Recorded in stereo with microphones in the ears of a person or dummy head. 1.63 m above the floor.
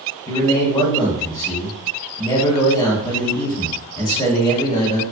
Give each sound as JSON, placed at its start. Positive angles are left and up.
{"t": 0.3, "sound": "a man speaking", "side_deg": 20, "distance_m": 0.9}